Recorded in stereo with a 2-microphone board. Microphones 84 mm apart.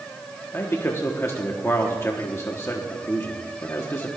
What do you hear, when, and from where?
0.5 s a man speaking: 30° left (ahead or behind), 1.2 m